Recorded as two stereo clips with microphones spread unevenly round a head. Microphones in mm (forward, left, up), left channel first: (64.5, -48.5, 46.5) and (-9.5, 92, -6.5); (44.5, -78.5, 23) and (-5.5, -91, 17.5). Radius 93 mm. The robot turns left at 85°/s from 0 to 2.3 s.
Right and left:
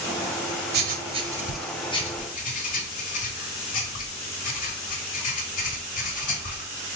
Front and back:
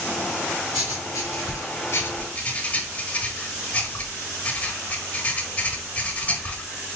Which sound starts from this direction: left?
Writing, at 0.7 s.